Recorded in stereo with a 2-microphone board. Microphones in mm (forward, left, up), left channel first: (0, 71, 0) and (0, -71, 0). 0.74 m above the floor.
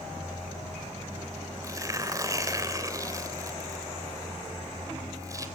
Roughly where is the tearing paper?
Right.